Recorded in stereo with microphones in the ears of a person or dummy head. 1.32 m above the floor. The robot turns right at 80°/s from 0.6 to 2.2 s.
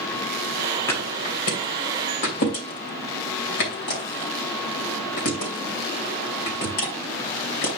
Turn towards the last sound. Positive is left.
turn(degrees=55)  # may be behind; listen again after turning